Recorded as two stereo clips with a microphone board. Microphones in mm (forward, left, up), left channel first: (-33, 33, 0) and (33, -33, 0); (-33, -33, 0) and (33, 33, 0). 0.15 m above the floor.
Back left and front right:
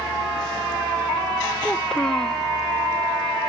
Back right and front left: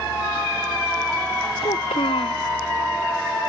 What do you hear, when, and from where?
1.6 s a child speaking: 140° right